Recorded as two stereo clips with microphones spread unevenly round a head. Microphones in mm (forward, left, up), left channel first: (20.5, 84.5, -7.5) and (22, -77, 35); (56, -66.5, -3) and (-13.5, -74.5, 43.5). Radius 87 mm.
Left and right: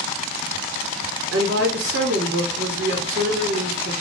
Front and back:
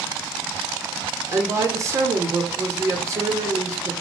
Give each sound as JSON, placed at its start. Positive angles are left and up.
{"t": 1.3, "sound": "a woman speaking", "azimuth_deg": -125, "distance_m": 0.9}